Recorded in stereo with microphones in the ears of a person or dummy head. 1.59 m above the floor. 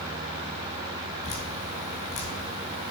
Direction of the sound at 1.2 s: 35° left (ahead or behind).